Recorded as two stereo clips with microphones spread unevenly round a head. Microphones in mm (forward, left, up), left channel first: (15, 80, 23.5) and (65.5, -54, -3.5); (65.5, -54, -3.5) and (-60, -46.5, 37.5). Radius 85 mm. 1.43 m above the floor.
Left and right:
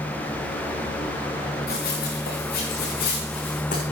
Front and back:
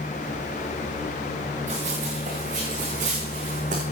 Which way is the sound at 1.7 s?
135° left.